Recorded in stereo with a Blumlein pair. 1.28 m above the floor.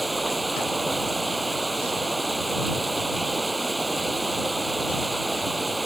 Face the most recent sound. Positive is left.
turn(degrees=-5)